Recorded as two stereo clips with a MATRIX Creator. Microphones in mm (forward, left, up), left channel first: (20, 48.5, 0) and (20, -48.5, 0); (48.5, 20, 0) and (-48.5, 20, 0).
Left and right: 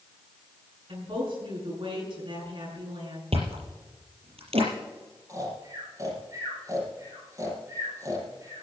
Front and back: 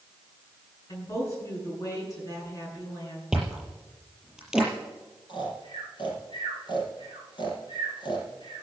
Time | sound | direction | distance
0.9 | a woman speaking | 60° right | 8 m
3.3 | chewing | 95° right | 5.5 m
5.3 | snoring | 35° right | 5.5 m